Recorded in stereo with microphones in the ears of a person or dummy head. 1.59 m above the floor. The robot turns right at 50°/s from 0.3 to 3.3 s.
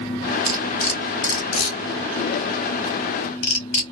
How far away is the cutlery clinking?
About 1.0 m.